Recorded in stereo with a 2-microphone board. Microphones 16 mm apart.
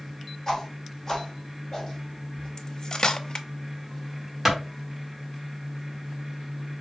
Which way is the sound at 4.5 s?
20° right (ahead or behind).